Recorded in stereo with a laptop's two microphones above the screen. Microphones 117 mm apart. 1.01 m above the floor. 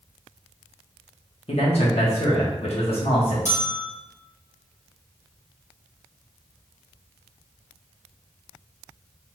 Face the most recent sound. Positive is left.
turn(degrees=85)